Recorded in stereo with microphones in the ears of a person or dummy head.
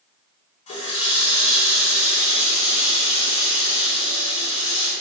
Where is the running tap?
35° left (ahead or behind), 2.5 m.